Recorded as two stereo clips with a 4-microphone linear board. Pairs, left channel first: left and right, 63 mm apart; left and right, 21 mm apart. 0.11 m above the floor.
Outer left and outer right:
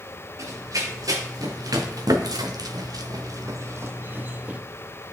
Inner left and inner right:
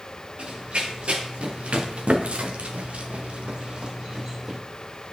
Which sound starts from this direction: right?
Running footsteps, at 0.4 s.